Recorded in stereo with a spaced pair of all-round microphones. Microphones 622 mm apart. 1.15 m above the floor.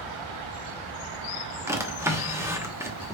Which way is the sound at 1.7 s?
5° right (ahead or behind).